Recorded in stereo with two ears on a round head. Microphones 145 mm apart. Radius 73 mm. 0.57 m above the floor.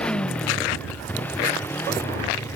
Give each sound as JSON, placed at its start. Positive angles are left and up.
{"t": 0.0, "sound": "a motorcycle", "side_deg": 5}